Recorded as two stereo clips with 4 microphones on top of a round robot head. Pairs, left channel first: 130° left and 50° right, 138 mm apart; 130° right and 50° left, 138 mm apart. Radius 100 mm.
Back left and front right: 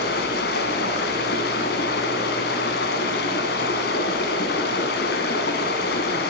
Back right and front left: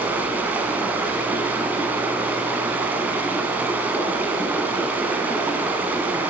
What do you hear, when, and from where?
0.0 s running water: 130° left, 1.7 m